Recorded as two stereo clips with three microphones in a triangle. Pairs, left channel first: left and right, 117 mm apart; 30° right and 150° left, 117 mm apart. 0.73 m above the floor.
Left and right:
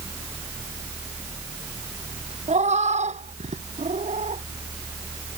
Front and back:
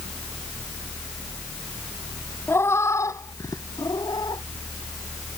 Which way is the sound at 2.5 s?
100° right.